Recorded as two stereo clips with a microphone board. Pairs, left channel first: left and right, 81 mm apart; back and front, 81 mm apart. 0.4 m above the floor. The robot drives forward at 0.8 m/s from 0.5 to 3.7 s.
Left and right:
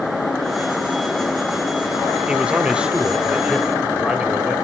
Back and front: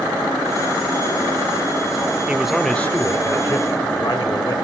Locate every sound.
2.3 s a man speaking: 40° right, 0.8 m; by 4.5 s 170° right, 1.2 m